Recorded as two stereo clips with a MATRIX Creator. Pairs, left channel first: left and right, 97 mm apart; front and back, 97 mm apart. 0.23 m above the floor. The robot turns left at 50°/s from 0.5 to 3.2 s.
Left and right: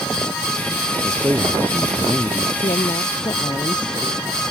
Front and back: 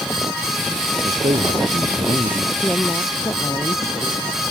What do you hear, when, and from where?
1.0 s a man speaking: 150° right; by 2.5 s 135° left
2.6 s a woman speaking: 80° left; by 4.4 s 55° left